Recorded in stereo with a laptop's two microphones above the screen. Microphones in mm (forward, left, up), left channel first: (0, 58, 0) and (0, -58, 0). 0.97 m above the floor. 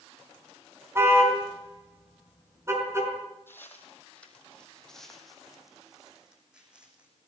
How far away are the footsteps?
About 2.5 m.